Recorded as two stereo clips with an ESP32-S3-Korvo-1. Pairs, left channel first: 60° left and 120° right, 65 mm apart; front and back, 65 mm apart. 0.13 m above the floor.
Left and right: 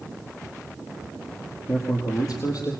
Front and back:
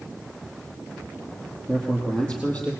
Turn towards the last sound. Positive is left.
turn(degrees=65)